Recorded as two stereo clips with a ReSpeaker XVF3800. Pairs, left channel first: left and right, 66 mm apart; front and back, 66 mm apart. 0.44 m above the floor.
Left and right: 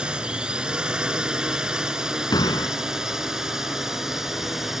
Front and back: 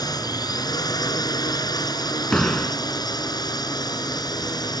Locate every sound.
0.0 s a drone: 15° right; by 4.8 s 5° right
2.3 s a door slam: 80° left